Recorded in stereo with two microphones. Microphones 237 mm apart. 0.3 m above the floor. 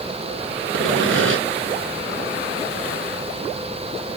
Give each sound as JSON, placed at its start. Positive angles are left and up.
{"t": 0.7, "sound": "sawing", "side_deg": -60, "distance_m": 2.0}